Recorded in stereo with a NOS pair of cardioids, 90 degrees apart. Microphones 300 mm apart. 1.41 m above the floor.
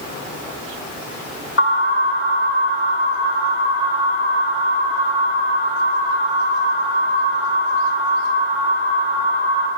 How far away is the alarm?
About 8 m.